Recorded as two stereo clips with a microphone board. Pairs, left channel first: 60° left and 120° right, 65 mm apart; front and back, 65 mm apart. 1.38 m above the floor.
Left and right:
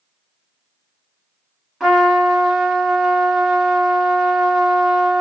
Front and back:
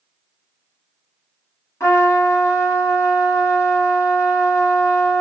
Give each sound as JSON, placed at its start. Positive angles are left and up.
{"t": 1.8, "sound": "a trumpet", "azimuth_deg": -35, "distance_m": 1.7}